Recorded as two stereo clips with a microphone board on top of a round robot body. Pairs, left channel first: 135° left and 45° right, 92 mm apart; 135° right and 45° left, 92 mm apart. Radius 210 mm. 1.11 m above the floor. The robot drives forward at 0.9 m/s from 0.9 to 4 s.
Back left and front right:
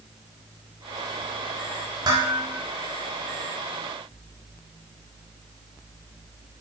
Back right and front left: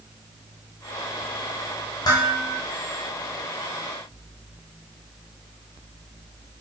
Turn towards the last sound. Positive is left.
turn(degrees=-120)